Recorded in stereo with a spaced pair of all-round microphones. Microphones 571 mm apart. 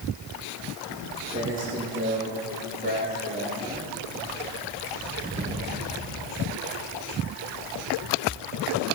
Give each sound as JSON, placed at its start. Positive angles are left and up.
{"t": 0.9, "sound": "footsteps", "side_deg": -20, "distance_m": 3.0}